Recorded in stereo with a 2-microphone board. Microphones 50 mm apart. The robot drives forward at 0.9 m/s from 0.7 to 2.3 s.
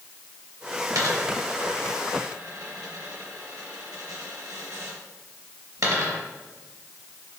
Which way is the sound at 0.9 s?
80° right.